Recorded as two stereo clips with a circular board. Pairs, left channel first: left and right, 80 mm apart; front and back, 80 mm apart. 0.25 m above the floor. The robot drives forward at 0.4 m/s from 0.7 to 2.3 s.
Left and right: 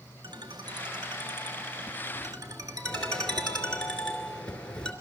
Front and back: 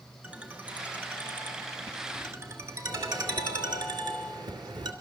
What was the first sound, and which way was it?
A ringtone, 105° right.